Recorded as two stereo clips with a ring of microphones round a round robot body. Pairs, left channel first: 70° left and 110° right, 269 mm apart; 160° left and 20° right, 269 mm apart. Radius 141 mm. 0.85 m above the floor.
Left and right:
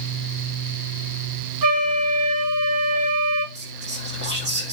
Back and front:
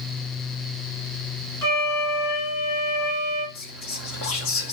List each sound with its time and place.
1.6 s a flute: 120° right, 2.5 m
3.5 s whispering: 165° right, 1.9 m